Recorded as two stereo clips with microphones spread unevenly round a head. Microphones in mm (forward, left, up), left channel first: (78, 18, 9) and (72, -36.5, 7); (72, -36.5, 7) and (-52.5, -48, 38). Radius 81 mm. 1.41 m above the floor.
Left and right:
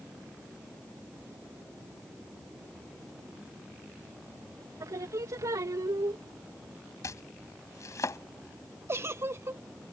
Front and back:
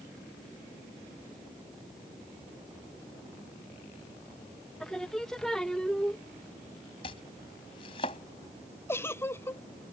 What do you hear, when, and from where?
4.8 s singing: 80° right
7.0 s chopping: 70° left
8.9 s a giggle: 60° right